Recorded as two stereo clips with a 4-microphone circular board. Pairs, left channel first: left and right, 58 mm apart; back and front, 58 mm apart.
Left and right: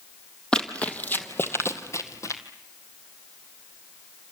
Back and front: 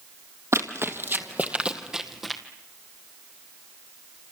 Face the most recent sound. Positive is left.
turn(degrees=90)